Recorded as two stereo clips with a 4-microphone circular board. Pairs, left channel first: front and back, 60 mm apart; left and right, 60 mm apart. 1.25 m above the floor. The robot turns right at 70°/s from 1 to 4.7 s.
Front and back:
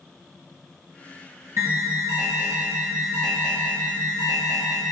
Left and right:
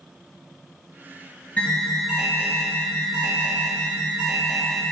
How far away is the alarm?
About 1.0 m.